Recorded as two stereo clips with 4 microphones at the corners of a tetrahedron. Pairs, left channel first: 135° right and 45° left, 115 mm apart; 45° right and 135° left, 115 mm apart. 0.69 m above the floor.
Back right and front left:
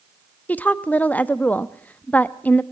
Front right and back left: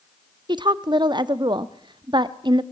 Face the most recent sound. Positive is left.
turn(degrees=155)